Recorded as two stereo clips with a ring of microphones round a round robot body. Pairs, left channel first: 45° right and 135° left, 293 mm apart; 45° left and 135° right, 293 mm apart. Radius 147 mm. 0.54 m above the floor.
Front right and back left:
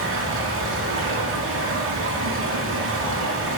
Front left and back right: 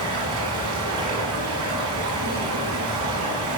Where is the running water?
175° right, 3.5 m.